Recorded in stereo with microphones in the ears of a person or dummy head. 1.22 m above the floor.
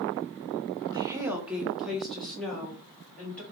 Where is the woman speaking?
15° right (ahead or behind), 0.5 m; by 3.4 s 15° left (ahead or behind), 1.8 m.